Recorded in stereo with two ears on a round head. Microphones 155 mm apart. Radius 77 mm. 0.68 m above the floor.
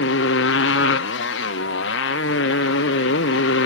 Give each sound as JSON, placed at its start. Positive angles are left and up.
{"t": 0.0, "sound": "a motorcycle", "side_deg": 75}